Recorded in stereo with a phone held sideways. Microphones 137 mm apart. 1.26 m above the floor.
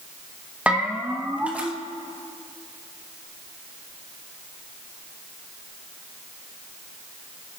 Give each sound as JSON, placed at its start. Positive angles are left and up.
{"t": 0.7, "sound": "a bell", "side_deg": -10, "distance_m": 1.1}